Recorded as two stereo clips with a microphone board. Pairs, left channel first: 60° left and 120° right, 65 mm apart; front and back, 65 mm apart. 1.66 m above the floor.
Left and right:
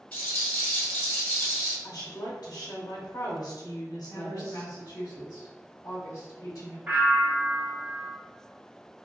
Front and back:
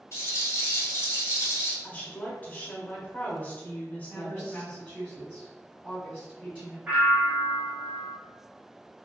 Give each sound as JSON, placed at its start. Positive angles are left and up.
{"t": 0.1, "sound": "a rattle", "azimuth_deg": 5, "distance_m": 1.9}
{"t": 1.8, "sound": "a woman speaking", "azimuth_deg": 65, "distance_m": 0.8}
{"t": 4.1, "sound": "a woman speaking", "azimuth_deg": 60, "distance_m": 1.1}
{"t": 6.9, "sound": "a bell", "azimuth_deg": -145, "distance_m": 1.1}